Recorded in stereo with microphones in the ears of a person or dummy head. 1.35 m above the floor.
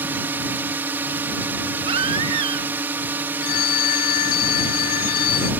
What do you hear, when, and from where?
0.0 s a drone: 10° right (ahead or behind)
1.9 s a baby crying: 30° right (ahead or behind)
3.4 s a phone ringing: 50° left (ahead or behind)